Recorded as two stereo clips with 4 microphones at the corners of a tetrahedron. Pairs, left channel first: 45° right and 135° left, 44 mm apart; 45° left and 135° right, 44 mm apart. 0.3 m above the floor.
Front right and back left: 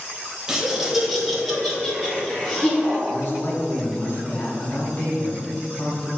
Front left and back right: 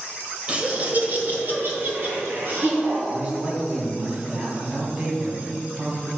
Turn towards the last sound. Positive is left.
turn(degrees=-70)